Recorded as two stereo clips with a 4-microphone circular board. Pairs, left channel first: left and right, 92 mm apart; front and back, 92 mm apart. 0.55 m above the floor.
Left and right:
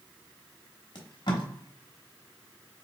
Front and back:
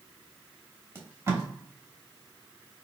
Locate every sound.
0.9 s tape being pulled: 120° left, 1.0 m